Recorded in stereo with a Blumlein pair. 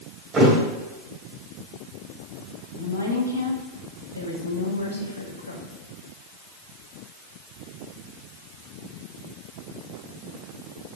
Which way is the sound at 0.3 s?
20° right.